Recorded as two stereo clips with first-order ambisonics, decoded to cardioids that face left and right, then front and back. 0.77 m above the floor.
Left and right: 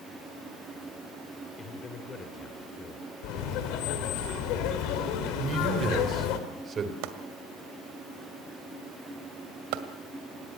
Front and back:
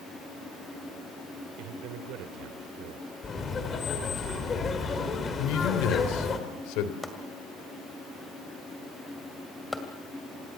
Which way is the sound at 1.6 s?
160° left.